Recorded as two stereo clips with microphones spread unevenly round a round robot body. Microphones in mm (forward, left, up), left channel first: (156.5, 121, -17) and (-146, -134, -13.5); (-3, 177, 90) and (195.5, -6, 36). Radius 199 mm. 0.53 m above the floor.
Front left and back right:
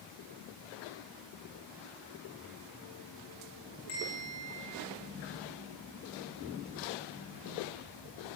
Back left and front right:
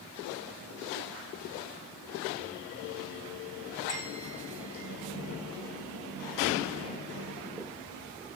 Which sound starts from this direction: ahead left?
A bell, at 3.9 s.